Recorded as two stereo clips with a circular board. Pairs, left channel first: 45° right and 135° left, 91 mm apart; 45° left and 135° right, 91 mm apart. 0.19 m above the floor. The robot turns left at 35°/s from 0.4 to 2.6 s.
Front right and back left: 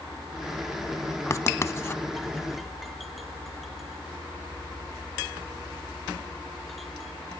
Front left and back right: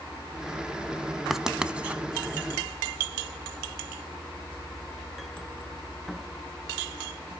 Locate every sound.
1.3 s writing: 55° right, 0.7 m; by 2.0 s 80° right, 0.7 m